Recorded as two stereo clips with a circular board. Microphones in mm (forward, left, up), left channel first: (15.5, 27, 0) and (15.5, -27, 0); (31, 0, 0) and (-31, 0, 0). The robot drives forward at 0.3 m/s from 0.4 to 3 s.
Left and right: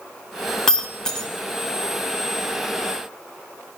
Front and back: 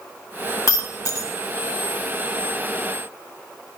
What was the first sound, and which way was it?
Breaking glass, 10° left.